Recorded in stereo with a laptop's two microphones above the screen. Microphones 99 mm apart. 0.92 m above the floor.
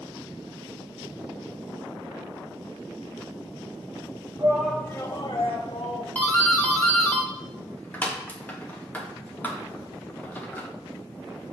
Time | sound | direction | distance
4.4 | a shout | 35° right (ahead or behind) | 0.7 m
6.2 | a doorbell | 15° left (ahead or behind) | 1.4 m